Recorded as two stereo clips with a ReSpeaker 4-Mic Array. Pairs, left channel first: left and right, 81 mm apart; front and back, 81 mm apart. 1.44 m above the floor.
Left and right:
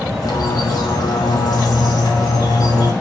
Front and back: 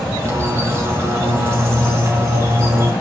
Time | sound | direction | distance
0.2 | a bird | 125° left | 3 m